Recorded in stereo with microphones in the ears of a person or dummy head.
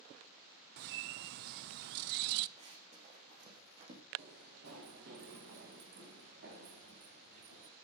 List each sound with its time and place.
0.8 s a bird: 55° right (ahead or behind), 0.5 m
2.6 s running footsteps: 45° right (ahead or behind), 4.5 m; by 4.0 s 35° right (ahead or behind), 3.5 m
4.2 s running footsteps: 60° right (ahead or behind), 4.5 m; by 7.7 s 75° right (ahead or behind), 6.5 m